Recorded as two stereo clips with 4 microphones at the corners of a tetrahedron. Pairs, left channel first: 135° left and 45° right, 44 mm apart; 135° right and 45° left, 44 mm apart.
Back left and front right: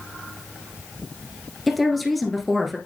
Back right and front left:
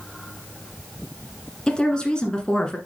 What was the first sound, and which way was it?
A woman speaking, 130° right.